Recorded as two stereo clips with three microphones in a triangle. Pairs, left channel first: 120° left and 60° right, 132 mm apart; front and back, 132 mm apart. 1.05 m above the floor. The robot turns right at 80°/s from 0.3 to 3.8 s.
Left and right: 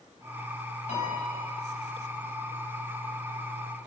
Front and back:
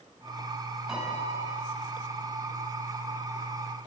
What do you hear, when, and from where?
0.9 s a piano: 95° left, 5.5 m; by 1.6 s 145° left, 5.5 m